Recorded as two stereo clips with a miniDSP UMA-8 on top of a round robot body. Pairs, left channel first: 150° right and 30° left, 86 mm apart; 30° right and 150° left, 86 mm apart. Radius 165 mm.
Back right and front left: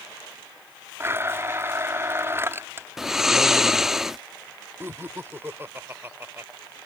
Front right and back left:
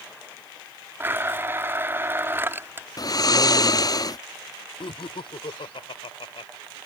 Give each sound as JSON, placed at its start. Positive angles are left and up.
{"t": 1.0, "sound": "a blender", "azimuth_deg": 90}
{"t": 3.0, "sound": "snoring", "azimuth_deg": -55}
{"t": 4.8, "sound": "laughter", "azimuth_deg": -35}